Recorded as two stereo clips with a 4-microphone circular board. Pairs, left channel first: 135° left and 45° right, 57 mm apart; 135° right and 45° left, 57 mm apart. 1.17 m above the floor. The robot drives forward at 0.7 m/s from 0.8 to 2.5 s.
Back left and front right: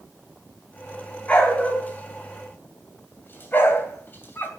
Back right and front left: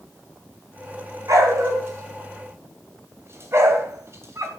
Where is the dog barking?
65° left, 3 m; by 4.5 s 80° left, 3 m.